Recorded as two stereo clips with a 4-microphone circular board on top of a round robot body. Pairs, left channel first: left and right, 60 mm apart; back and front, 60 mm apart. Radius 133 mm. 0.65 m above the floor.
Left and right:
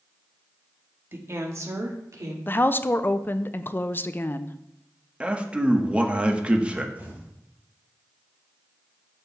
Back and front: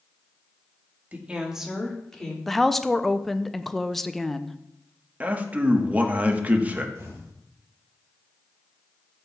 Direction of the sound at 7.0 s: 30° right.